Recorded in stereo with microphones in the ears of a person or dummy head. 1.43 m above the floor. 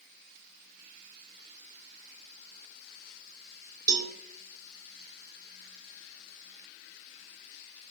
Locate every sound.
3.9 s a cowbell: 20° right (ahead or behind), 1.2 m